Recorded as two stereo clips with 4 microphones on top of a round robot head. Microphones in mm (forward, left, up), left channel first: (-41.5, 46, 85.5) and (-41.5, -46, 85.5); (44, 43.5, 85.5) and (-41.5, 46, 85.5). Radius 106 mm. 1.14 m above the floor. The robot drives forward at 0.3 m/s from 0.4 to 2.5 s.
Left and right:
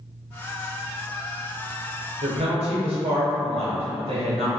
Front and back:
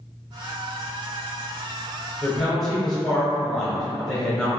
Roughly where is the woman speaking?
Right.